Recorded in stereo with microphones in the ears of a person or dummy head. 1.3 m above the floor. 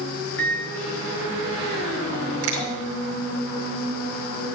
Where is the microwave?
90° left, 2.5 m.